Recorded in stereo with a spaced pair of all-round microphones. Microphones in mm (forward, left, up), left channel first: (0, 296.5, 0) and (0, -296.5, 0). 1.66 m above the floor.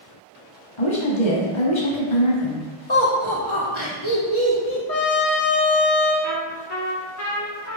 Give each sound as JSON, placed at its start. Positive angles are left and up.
{"t": 0.8, "sound": "a woman speaking", "side_deg": 50, "distance_m": 1.0}
{"t": 2.9, "sound": "laughter", "side_deg": 50, "distance_m": 1.1}
{"t": 4.9, "sound": "a trumpet", "side_deg": 80, "distance_m": 1.1}
{"t": 6.2, "sound": "a trumpet", "side_deg": 25, "distance_m": 1.3}